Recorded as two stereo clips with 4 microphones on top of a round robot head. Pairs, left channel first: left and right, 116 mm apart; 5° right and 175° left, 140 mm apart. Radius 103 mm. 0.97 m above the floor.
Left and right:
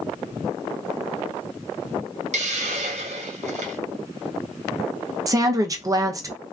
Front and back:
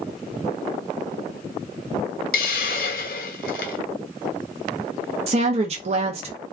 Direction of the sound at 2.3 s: 40° right.